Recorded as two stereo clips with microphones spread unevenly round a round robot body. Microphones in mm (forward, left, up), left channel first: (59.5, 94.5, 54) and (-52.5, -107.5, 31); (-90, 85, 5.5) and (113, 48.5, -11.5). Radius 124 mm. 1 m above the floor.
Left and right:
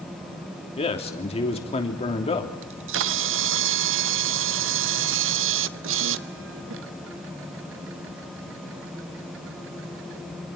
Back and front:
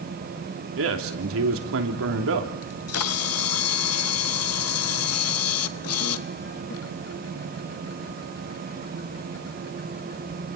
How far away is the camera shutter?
About 0.7 m.